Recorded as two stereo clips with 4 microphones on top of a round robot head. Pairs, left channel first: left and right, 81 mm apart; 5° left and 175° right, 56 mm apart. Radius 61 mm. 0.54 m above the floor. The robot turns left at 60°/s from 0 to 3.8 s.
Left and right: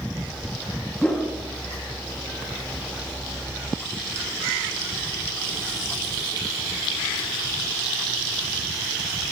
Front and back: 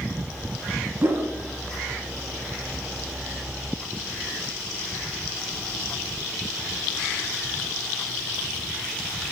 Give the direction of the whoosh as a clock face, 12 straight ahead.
6 o'clock.